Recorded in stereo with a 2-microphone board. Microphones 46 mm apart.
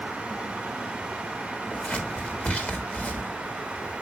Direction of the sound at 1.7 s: 35° left (ahead or behind).